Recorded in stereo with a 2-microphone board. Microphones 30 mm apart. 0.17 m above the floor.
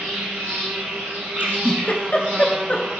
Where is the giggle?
50° left (ahead or behind), 0.5 m.